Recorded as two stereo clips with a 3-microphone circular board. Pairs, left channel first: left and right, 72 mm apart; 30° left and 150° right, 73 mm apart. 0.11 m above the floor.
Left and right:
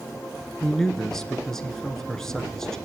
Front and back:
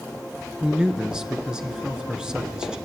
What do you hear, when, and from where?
0.6 s a man speaking: 160° left, 1.1 m